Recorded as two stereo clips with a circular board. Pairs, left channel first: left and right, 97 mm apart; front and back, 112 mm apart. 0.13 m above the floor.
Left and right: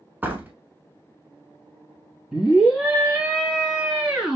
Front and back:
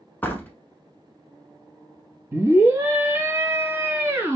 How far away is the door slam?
About 0.9 m.